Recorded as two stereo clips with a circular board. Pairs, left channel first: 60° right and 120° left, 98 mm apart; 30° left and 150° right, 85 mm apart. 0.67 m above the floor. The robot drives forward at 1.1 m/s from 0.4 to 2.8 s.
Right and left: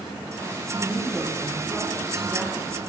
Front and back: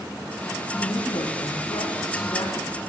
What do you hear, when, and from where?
0.8 s a woman speaking: 25° left, 6 m; by 2.8 s 40° left, 4 m